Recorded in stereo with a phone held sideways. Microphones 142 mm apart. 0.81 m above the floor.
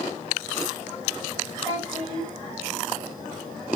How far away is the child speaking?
About 2.5 m.